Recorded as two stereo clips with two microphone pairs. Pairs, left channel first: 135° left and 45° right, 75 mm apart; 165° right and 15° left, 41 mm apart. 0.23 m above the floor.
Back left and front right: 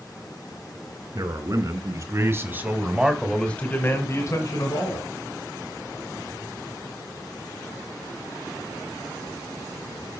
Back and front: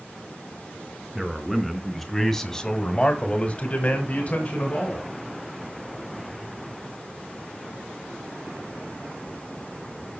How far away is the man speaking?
About 3 m.